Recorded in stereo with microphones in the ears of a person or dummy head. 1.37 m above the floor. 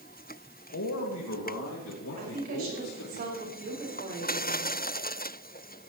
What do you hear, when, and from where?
0.7 s a man speaking: 70° left (ahead or behind), 2 m
2.2 s a woman speaking: 45° right (ahead or behind), 6 m